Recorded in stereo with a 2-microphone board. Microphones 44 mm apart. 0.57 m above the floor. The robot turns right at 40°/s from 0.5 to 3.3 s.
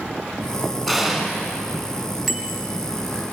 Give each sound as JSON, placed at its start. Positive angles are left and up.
{"t": 0.9, "sound": "an explosion", "side_deg": 5, "distance_m": 5.0}
{"t": 2.3, "sound": "a bicycle bell", "side_deg": 0, "distance_m": 3.0}